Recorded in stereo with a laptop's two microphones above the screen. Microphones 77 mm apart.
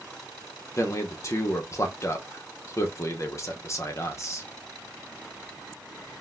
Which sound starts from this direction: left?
A man speaking, at 0.8 s.